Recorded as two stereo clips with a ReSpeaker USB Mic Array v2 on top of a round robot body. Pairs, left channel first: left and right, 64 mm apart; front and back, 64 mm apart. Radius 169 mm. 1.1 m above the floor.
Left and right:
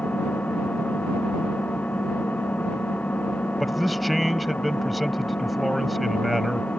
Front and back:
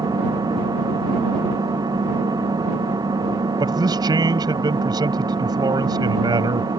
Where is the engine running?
160° left.